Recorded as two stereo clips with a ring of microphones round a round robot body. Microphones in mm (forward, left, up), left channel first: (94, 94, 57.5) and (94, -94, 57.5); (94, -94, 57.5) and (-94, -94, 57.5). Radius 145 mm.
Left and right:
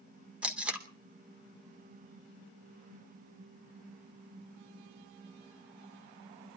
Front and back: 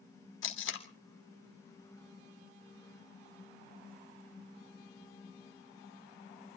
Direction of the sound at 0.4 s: 5° right.